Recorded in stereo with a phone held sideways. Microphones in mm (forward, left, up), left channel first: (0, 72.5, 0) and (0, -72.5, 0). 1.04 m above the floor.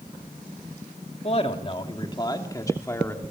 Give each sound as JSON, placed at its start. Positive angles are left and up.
{"t": 1.2, "sound": "a man speaking", "side_deg": 45, "distance_m": 2.5}